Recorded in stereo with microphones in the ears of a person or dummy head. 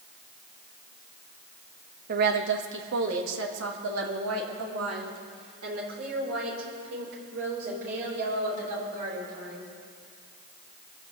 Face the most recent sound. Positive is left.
turn(degrees=-75)  # may be behind; listen again after turning